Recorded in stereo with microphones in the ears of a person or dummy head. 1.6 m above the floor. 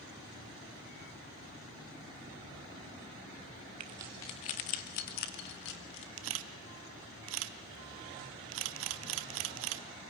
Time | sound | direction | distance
3.8 | keys jangling | 25° right (ahead or behind) | 0.7 m
6.2 | a camera shutter | 70° right (ahead or behind) | 0.7 m